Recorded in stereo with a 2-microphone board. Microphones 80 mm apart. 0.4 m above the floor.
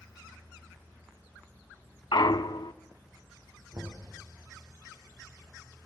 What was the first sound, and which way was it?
A clunk, 70° left (ahead or behind).